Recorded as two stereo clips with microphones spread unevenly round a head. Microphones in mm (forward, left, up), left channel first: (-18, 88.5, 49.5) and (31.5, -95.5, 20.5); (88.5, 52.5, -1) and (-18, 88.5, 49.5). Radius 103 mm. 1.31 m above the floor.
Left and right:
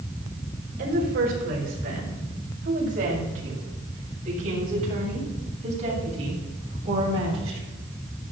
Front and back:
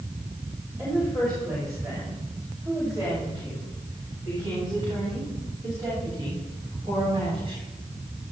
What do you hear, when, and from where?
0.8 s a woman speaking: 115° right, 6 m; by 7.6 s 135° right, 9 m